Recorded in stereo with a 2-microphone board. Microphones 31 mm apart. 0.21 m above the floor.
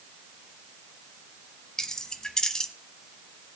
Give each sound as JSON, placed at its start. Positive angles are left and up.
{"t": 1.8, "sound": "keys jangling", "side_deg": 20, "distance_m": 0.9}